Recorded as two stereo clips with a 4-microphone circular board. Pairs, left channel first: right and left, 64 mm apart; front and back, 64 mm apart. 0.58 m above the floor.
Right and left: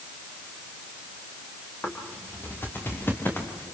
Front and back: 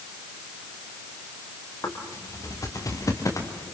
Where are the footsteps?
30° right, 6.5 m.